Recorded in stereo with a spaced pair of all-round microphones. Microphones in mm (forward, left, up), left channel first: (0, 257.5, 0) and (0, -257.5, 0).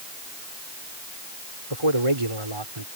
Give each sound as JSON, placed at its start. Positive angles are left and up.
{"t": 1.7, "sound": "a man speaking", "side_deg": -80}